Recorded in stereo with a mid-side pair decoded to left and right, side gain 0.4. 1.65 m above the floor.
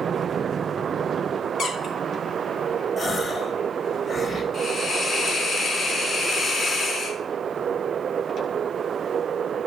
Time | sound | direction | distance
1.6 | a squeak | 70° left | 3.5 m
3.0 | a gasp | 45° left | 1.7 m
4.5 | a hiss | 50° left | 3 m